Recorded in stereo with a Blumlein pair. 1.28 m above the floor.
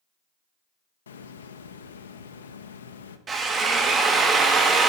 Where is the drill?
20° right, 0.7 m.